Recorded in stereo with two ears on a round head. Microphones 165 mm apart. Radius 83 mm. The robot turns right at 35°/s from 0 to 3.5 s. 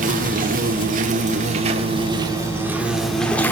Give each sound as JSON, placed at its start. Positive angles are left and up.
{"t": 0.0, "sound": "an insect", "azimuth_deg": -110, "distance_m": 1.7}